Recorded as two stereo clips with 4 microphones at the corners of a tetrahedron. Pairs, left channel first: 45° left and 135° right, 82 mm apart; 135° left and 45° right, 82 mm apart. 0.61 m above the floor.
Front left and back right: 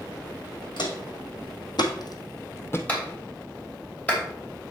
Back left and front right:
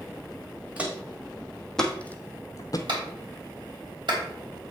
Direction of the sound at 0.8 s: 30° left.